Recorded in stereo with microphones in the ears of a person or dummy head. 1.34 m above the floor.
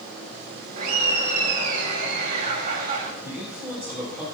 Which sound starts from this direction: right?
Laughter, at 0.8 s.